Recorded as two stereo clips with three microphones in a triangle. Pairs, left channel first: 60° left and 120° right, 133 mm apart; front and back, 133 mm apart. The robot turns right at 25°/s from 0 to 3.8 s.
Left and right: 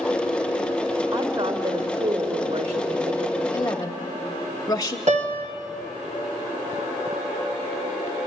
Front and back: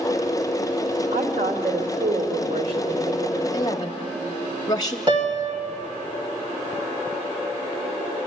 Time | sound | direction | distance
1.1 | a woman speaking | 175° left | 2 m
3.5 | a woman speaking | 20° left | 1.0 m
5.1 | a piano | 130° right | 1.9 m